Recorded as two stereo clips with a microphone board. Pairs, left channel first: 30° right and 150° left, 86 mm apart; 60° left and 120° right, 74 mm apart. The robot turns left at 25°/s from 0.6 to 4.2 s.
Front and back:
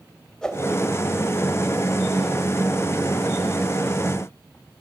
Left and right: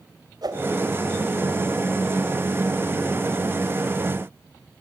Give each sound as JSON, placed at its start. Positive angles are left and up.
{"t": 0.4, "sound": "a whoosh", "azimuth_deg": -110, "distance_m": 2.5}